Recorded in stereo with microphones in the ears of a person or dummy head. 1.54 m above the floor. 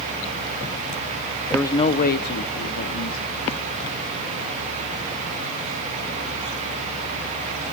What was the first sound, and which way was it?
A man speaking, centre (ahead or behind).